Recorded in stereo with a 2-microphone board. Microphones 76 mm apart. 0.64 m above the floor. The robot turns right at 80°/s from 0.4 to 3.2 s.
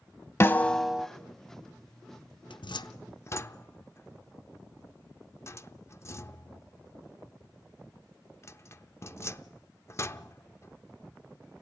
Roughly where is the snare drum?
Behind left.